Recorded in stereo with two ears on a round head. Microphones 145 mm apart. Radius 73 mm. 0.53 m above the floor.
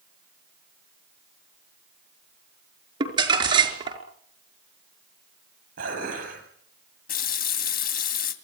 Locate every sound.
3.0 s crumpling: 30° right (ahead or behind), 5 m
5.8 s dishes clattering: 55° right (ahead or behind), 9 m
7.1 s a running tap: 55° left (ahead or behind), 2.5 m